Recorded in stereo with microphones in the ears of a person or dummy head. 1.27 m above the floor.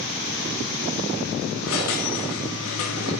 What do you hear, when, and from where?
1.6 s a squeak: 85° left, 1.8 m